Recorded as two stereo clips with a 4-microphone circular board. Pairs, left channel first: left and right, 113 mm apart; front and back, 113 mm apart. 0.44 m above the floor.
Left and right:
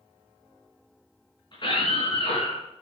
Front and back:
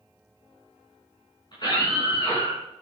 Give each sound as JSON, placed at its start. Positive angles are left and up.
{"t": 1.5, "sound": "a scream", "azimuth_deg": 45, "distance_m": 5.0}